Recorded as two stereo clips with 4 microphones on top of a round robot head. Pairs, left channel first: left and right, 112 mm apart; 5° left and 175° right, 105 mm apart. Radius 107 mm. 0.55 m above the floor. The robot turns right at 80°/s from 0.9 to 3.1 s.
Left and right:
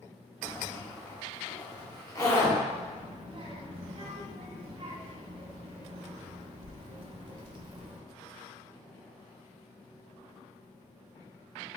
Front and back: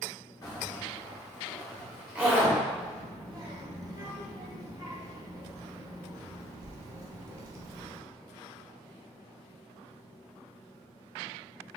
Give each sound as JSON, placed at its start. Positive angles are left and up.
{"t": 0.4, "sound": "a zipper", "azimuth_deg": 15, "distance_m": 1.3}
{"t": 2.7, "sound": "a child speaking", "azimuth_deg": -155, "distance_m": 0.8}